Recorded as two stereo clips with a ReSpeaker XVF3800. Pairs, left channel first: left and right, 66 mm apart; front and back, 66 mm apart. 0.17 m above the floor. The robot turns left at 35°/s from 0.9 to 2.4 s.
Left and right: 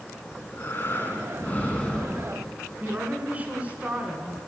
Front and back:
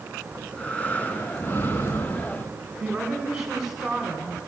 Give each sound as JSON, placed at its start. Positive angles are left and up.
{"t": 0.3, "sound": "breathing", "azimuth_deg": 60, "distance_m": 1.3}
{"t": 2.8, "sound": "a woman speaking", "azimuth_deg": -105, "distance_m": 1.3}